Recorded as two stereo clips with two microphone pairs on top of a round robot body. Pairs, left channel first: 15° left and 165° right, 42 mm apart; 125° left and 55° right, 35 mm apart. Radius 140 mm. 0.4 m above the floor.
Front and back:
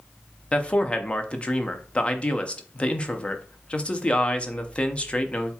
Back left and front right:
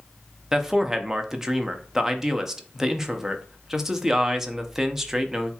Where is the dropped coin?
No dropped coin in this recording.